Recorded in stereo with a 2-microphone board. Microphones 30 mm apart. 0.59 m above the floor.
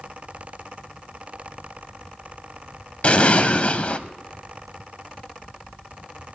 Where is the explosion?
45° left (ahead or behind), 0.6 m.